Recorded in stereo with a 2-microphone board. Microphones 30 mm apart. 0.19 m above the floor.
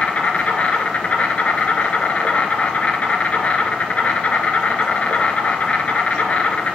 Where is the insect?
45° left (ahead or behind), 1.1 m.